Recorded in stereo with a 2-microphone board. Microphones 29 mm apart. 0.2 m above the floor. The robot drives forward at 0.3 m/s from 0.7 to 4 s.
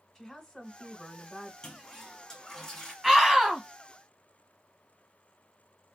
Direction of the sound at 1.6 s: 20° left (ahead or behind).